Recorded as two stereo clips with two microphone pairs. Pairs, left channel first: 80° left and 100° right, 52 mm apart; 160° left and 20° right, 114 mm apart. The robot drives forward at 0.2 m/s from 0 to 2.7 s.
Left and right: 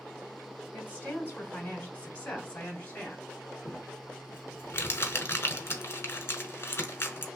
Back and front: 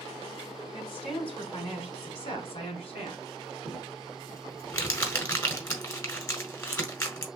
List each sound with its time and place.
0.7 s a woman speaking: 135° left, 1.8 m; by 3.2 s 140° left, 2 m
3.6 s crumpling: 100° left, 1.2 m